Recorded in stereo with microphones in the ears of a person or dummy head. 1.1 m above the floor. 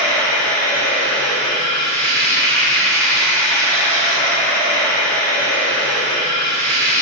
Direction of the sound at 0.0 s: 10° left (ahead or behind).